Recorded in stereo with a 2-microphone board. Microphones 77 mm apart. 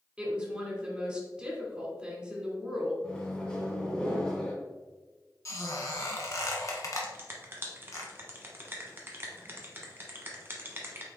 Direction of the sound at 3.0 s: 10° left (ahead or behind).